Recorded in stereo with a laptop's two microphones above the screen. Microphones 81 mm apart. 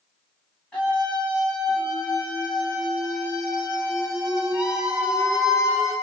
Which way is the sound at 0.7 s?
15° left (ahead or behind).